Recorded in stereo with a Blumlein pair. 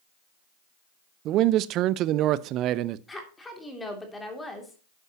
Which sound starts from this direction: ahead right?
A man speaking, at 1.2 s.